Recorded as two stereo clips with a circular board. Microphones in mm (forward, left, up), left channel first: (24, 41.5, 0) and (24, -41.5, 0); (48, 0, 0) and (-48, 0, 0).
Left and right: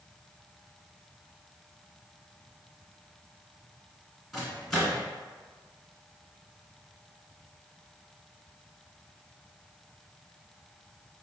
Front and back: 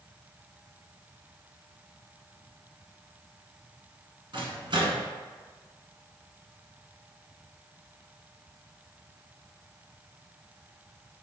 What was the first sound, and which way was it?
A microwave, straight behind.